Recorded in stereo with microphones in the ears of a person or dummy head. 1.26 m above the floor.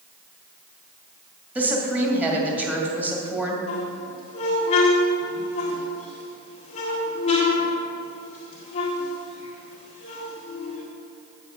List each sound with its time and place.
1.6 s a woman speaking: 10° right (ahead or behind), 2 m
3.7 s a squeak: 35° left (ahead or behind), 1.7 m